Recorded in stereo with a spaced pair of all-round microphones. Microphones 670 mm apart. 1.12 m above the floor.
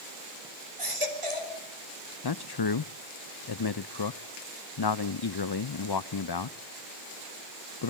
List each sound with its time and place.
0.8 s a baby crying: 50° right (ahead or behind), 3.5 m
2.2 s a man speaking: 40° left (ahead or behind), 0.5 m